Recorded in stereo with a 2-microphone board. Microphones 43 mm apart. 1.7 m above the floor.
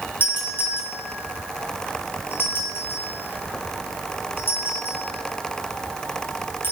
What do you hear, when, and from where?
0.2 s a doorbell: 60° left (ahead or behind), 7 m